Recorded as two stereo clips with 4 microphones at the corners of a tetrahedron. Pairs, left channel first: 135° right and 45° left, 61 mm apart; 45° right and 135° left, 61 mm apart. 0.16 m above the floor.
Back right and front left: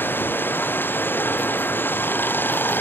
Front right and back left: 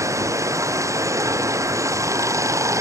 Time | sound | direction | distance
0.0 | running water | 170° left | ?